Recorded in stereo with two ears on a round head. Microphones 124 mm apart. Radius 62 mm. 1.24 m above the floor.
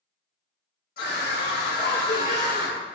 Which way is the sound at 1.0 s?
75° left (ahead or behind).